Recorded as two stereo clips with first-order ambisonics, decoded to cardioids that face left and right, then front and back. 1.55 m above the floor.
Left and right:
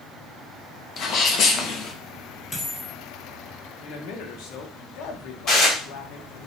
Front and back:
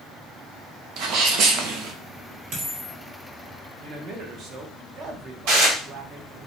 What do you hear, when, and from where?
1.0 s a sneeze: 145° left, 1.0 m
2.5 s a dropped coin: 165° left, 2.5 m
3.8 s a man speaking: 125° left, 1.2 m
5.5 s dishes clattering: 155° left, 3 m